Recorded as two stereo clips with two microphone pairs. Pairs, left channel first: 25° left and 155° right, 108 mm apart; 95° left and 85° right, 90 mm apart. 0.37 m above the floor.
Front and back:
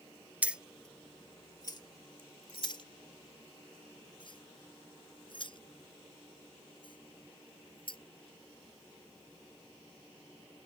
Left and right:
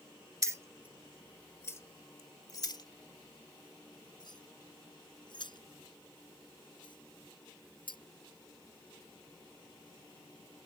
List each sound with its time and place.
0.4 s keys jangling: 95° right; by 8.0 s 65° left